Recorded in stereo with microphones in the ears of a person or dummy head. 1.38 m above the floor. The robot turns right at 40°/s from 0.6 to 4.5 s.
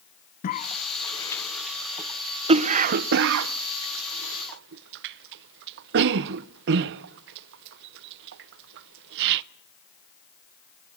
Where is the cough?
40° left (ahead or behind), 0.7 m; by 9.4 s 65° right (ahead or behind), 0.7 m.